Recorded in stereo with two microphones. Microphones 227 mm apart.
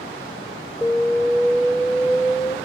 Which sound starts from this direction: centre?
An alarm, at 0.8 s.